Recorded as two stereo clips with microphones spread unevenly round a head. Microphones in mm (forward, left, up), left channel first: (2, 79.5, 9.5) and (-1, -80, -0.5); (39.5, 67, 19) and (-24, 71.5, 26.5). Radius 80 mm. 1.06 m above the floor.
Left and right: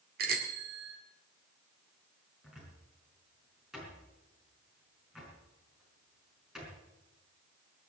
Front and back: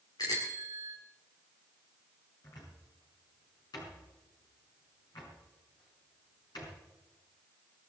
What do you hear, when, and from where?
0.2 s a bicycle bell: 60° right, 2 m
2.4 s a cupboard door: 5° right, 5 m